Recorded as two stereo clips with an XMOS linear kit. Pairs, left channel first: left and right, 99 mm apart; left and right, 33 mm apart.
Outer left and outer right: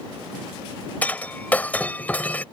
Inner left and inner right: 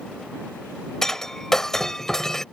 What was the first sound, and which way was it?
Breaking glass, 15° left (ahead or behind).